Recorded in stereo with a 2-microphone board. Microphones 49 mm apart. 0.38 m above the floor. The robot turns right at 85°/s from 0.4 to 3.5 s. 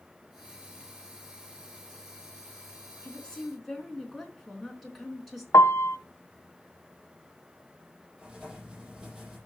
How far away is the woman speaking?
About 4.5 m.